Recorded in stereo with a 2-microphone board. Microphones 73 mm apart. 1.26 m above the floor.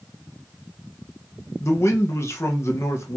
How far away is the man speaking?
About 1.0 m.